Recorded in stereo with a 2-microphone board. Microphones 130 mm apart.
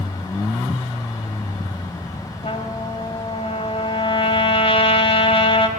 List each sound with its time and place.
2.4 s a trumpet: 50° left (ahead or behind), 3 m